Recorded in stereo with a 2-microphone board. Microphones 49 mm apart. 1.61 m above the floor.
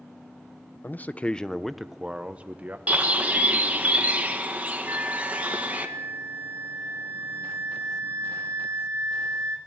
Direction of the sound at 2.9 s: 30° right (ahead or behind).